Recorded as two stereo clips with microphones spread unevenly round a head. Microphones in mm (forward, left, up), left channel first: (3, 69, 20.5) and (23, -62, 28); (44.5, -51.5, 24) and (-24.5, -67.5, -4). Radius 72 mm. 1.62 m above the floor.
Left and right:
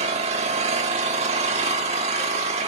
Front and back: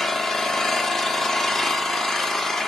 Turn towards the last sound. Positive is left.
turn(degrees=-55)